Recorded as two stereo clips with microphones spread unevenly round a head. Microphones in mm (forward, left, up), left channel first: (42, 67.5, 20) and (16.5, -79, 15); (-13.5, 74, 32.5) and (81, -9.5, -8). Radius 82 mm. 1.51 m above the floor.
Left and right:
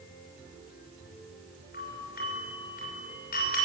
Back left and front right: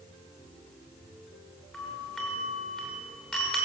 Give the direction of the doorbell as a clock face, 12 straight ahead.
10 o'clock.